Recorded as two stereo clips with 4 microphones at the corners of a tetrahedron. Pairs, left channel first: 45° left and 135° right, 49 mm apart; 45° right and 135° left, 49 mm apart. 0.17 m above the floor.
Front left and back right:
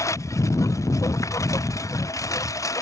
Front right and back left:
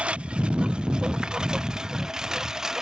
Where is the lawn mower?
65° left; by 2.8 s 55° left.